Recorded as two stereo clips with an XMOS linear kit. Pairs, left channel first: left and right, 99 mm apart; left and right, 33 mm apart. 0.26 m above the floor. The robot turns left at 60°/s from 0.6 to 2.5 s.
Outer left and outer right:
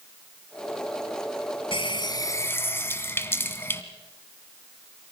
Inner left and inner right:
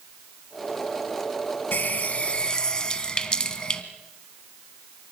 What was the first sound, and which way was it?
A running tap, 75° left.